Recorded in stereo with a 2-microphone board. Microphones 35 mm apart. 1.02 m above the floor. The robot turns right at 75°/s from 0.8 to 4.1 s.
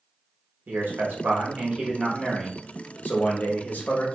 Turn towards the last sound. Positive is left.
turn(degrees=135)